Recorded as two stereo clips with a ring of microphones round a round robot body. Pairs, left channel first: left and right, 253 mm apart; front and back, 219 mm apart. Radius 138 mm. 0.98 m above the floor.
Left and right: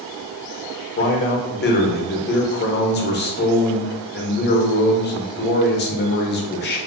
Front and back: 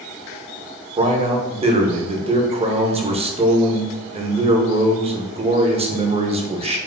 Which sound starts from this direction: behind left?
A man speaking, at 1.0 s.